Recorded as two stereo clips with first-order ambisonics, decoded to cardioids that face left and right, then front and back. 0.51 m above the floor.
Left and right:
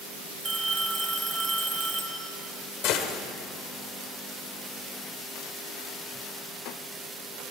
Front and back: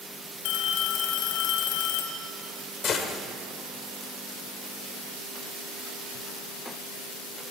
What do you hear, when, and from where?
0.5 s a phone ringing: 15° right, 1.7 m
2.8 s a gunshot: 60° left, 1.3 m